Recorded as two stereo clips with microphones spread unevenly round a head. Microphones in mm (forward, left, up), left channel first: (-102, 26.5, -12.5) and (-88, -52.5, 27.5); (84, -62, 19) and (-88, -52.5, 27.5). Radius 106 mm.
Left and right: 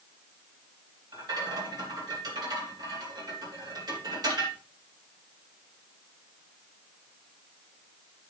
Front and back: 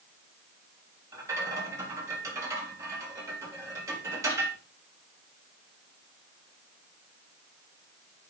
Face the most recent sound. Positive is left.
turn(degrees=-110)